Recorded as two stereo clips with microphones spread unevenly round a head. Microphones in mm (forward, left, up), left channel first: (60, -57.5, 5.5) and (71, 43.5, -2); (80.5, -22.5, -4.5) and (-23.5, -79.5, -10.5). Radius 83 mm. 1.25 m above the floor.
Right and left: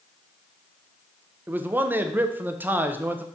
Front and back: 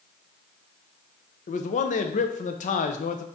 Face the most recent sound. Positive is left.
turn(degrees=15)